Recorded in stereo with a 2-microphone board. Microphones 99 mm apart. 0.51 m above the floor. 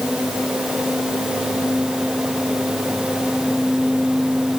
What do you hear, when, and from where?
Only background noise.